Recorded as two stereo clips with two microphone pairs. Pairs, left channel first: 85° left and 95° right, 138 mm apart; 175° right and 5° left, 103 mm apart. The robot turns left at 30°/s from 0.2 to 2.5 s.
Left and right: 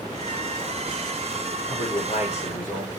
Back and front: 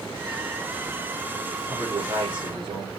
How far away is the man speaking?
About 9 m.